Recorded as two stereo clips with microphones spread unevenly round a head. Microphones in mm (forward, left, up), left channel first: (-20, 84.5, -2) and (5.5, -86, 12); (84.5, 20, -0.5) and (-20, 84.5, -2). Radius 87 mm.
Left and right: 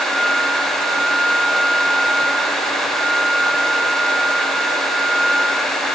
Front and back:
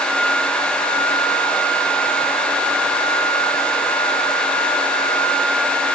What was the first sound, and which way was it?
Only background noise.